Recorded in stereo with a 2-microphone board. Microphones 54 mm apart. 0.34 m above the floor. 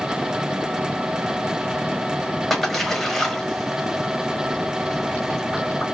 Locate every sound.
2.5 s a splash: 5° left (ahead or behind), 1.2 m